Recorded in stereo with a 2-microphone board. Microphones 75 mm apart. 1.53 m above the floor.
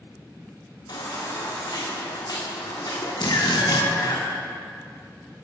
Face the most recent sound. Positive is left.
turn(degrees=70)  # may be behind; listen again after turning